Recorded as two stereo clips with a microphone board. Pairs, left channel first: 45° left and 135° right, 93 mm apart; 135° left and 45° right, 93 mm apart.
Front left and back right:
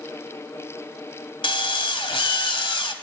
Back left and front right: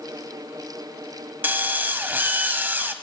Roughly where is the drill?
Ahead left.